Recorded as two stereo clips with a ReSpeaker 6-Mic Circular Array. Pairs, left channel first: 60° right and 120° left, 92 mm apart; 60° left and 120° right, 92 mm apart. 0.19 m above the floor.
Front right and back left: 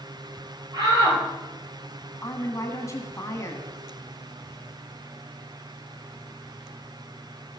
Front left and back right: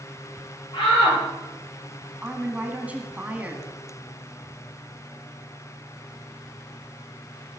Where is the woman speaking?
60° right, 1.8 m.